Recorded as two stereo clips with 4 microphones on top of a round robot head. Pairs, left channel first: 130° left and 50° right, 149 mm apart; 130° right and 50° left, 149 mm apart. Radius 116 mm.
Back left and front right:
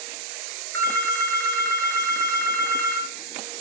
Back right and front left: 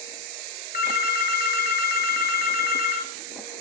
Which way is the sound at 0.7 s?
155° right.